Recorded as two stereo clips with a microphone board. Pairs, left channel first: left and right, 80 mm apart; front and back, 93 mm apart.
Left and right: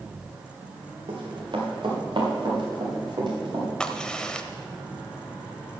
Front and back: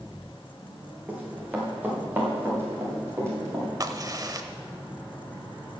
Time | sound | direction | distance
1.1 | running footsteps | 105° right | 4.5 m
3.8 | a crack | 165° left | 0.8 m